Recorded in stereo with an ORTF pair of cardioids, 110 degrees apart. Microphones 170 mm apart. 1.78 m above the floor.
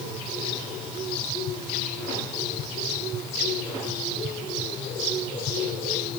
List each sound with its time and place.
Only background noise.